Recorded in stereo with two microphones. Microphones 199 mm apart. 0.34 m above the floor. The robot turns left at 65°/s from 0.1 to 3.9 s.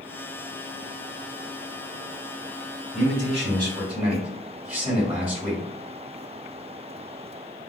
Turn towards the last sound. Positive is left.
turn(degrees=-170)